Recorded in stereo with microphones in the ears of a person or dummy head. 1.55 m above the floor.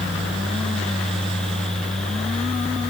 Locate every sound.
Only background noise.